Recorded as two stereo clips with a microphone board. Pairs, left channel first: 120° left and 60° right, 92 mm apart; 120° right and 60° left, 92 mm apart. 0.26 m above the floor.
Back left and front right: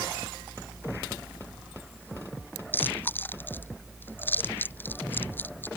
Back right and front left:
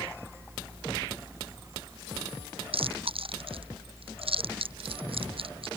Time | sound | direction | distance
2.7 | chewing | 50° left | ?